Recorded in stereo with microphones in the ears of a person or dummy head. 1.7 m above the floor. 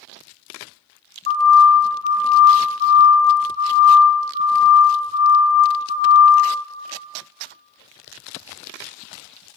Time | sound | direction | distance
1.3 | a siren | 50° left (ahead or behind) | 3 m